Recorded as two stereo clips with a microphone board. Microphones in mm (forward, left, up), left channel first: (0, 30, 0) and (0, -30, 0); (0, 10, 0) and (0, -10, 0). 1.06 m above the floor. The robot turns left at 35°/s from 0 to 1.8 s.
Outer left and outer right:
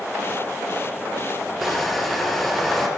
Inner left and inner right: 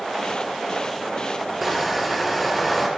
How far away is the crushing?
About 3 m.